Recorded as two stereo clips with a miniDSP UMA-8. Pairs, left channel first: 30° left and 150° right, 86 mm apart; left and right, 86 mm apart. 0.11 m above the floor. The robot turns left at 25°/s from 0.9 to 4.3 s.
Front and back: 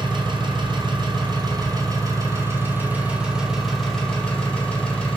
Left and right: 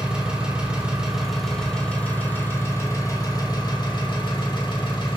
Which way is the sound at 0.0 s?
165° right.